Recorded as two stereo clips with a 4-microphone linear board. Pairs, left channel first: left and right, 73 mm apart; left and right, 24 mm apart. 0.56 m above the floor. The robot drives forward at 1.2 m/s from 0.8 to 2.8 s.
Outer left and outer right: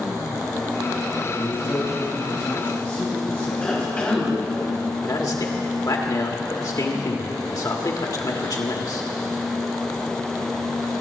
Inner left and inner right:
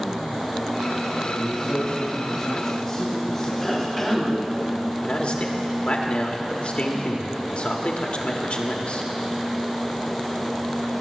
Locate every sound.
1.3 s a man speaking: 50° left (ahead or behind), 2 m; by 4.6 s 30° left (ahead or behind), 3.5 m
3.6 s a cough: 15° left (ahead or behind), 3.5 m
5.0 s a man speaking: 55° left (ahead or behind), 1.5 m